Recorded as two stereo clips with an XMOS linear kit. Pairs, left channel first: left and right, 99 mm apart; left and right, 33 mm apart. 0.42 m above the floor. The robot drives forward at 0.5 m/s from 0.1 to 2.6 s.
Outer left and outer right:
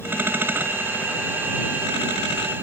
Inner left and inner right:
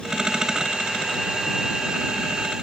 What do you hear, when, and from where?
Only background noise.